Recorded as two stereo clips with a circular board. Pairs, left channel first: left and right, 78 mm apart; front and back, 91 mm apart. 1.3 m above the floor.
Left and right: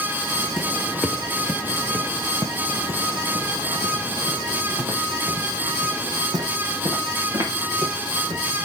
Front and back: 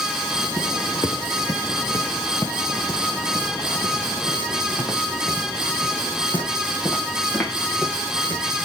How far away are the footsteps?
About 1.7 m.